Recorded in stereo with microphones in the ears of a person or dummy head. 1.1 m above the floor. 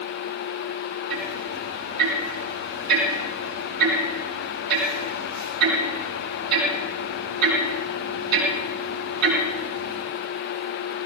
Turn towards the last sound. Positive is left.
turn(degrees=-85)